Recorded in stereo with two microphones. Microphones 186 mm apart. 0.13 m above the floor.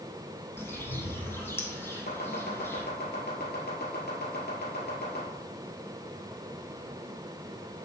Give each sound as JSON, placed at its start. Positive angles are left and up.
{"t": 0.6, "sound": "a bird", "side_deg": 15, "distance_m": 1.3}
{"t": 2.1, "sound": "chopping", "side_deg": 60, "distance_m": 2.5}